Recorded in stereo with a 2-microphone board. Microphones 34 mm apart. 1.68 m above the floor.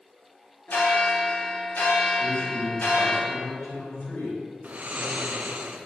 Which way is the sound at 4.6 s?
45° right (ahead or behind).